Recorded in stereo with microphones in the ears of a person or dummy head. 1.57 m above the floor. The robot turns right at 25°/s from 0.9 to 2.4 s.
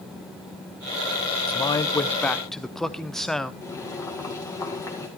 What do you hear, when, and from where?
1.5 s a man speaking: 20° left (ahead or behind), 0.7 m; by 3.5 s 5° right (ahead or behind), 0.7 m
3.6 s boiling: 10° left (ahead or behind), 2.0 m